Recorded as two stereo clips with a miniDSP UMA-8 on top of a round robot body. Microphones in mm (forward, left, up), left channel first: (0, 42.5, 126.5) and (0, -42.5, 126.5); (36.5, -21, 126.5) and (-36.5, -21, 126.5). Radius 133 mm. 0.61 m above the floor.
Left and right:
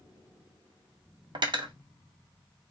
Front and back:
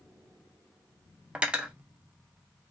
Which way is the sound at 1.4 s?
105° right.